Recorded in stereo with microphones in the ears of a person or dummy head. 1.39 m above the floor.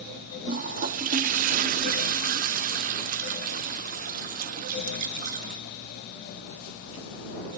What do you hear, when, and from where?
0.5 s a toilet flushing: 40° right (ahead or behind)